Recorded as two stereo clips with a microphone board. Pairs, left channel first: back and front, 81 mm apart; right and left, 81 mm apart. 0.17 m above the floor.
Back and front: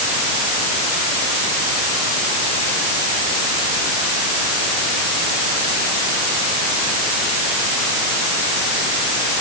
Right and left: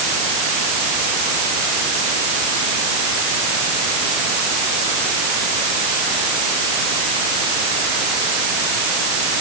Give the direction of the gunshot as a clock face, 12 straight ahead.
No gunshot in this recording.